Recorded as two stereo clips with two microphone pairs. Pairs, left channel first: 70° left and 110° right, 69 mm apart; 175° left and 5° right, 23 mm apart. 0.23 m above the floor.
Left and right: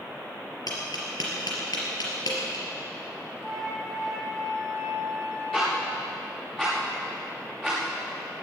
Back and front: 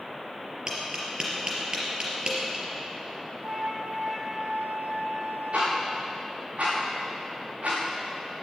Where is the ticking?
15° right, 7 m.